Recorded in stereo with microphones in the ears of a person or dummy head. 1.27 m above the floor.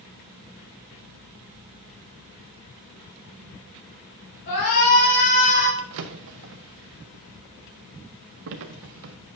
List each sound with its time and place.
4.5 s a shout: 70° left (ahead or behind), 4.5 m; by 5.7 s 50° left (ahead or behind), 5 m
5.8 s a drawer: 55° right (ahead or behind), 0.7 m